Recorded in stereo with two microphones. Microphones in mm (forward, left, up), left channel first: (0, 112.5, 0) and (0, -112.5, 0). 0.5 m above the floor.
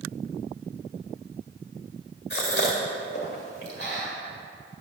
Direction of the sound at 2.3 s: 50° left (ahead or behind).